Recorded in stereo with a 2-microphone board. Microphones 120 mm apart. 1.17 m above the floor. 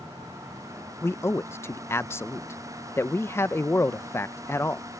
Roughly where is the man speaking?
Left.